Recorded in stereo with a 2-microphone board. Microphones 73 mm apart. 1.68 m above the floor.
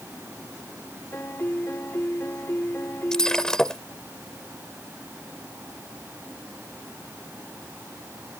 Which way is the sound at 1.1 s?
35° left (ahead or behind).